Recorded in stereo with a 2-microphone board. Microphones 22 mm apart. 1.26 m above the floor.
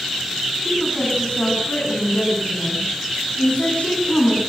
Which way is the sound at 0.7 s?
65° left (ahead or behind).